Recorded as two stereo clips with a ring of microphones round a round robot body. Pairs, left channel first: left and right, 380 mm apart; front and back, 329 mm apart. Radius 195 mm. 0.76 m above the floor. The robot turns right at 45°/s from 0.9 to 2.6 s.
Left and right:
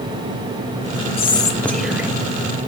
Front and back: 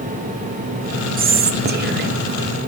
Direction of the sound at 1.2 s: 150° left.